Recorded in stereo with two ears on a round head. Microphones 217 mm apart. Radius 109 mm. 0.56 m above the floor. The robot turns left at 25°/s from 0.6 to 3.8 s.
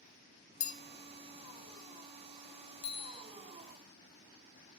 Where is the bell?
30° left (ahead or behind), 0.6 m.